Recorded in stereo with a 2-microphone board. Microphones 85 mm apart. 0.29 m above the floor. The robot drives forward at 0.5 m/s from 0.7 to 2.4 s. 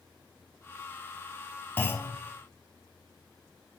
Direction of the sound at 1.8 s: 25° left (ahead or behind).